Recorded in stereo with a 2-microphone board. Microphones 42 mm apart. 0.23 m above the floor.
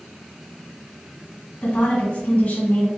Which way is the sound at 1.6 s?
40° left (ahead or behind).